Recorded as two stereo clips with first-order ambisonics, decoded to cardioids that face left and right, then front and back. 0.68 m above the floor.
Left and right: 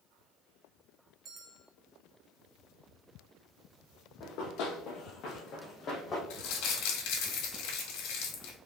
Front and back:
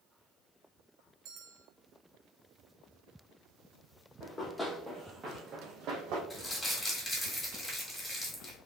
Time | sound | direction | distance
1.2 | a bell | 150° right | 0.7 m
4.2 | running footsteps | 70° left | 1.2 m
6.3 | crumpling | 80° left | 1.2 m